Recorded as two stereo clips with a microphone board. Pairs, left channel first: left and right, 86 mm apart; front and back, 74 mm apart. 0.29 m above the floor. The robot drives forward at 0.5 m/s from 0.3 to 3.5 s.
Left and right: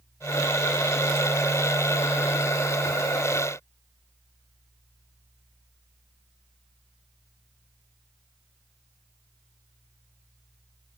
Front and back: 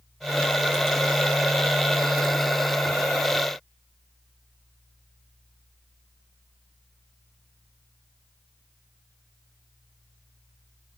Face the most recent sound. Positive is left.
No sound to turn to.